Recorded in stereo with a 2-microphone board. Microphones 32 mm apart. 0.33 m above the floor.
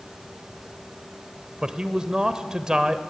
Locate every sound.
1.6 s a man speaking: 25° right (ahead or behind), 1.1 m